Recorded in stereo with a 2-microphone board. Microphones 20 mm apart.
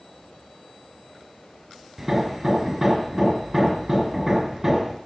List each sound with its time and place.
2.0 s hammering: 25° right (ahead or behind), 2.5 m